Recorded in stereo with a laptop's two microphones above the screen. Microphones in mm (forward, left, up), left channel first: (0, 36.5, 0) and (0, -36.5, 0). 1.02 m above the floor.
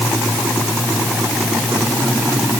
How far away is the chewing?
I don't hear chewing.